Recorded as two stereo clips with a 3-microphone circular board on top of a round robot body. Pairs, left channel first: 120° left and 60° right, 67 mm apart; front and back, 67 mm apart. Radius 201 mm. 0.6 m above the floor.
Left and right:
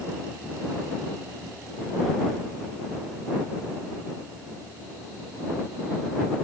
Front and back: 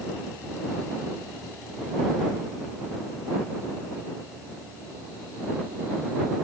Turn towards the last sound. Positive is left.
No sound to turn to.